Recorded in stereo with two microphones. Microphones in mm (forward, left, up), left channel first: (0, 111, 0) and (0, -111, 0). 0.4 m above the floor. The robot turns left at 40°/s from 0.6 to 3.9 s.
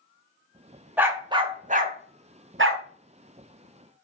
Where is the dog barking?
5° right (ahead or behind), 0.6 m; by 2.8 s 60° right (ahead or behind), 0.6 m.